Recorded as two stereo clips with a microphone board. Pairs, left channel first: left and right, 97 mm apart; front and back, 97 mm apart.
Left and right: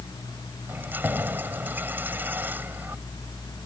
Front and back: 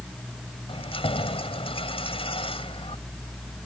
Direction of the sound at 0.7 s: 20° right.